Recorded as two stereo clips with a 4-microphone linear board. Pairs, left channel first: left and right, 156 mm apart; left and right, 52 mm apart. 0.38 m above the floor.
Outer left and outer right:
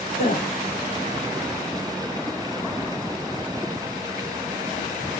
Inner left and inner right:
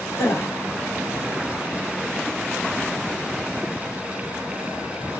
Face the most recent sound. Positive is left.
turn(degrees=65)  # may be behind; listen again after turning